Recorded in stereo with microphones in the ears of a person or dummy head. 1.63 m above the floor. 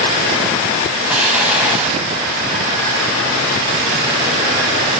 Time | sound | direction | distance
1.1 | an explosion | 10° right (ahead or behind) | 3.5 m